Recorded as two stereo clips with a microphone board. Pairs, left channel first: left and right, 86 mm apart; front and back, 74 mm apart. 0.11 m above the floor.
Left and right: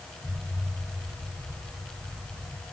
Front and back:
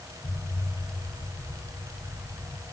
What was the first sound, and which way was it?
An explosion, straight ahead.